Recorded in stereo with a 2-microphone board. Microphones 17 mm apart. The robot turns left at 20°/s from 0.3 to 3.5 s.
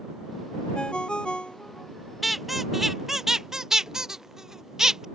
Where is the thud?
I don't hear a thud.